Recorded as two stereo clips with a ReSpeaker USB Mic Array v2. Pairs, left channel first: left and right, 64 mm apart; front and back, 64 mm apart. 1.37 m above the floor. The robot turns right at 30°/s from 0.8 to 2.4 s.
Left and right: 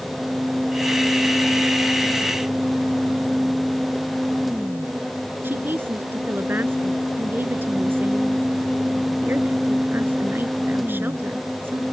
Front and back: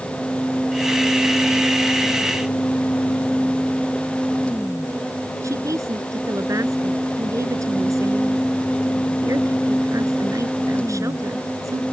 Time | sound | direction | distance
5.4 | a woman speaking | 145° right | ?